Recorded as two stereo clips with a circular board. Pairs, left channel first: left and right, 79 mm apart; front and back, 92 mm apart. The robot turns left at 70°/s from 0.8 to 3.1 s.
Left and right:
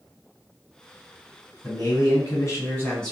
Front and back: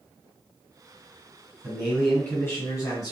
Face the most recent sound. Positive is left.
turn(degrees=10)